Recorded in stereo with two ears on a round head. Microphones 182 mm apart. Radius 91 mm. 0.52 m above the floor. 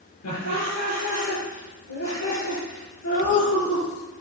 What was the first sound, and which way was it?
Laughter, 80° left.